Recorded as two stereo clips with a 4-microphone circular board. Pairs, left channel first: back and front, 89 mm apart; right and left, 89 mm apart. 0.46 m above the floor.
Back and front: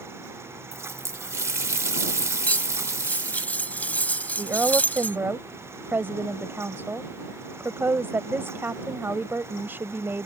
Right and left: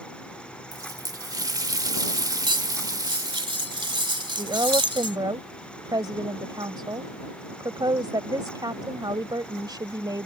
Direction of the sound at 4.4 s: 60° left.